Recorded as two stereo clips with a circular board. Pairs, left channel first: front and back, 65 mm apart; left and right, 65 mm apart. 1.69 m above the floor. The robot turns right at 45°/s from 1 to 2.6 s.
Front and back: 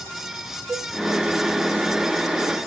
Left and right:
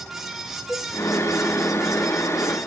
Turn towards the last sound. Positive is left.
turn(degrees=-145)